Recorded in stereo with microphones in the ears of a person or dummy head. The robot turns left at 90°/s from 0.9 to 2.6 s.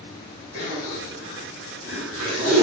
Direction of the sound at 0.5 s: 75° left (ahead or behind).